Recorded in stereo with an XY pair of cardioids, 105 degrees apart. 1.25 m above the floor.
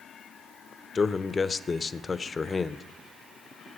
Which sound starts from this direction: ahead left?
A man speaking, at 0.9 s.